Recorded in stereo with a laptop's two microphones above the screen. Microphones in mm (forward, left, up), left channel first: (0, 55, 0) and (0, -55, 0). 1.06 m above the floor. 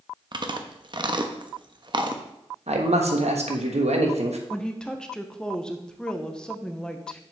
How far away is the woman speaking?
About 0.8 m.